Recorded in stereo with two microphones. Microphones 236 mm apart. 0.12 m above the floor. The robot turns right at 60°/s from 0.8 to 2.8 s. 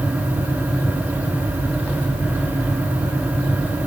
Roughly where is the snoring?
No snoring in this recording.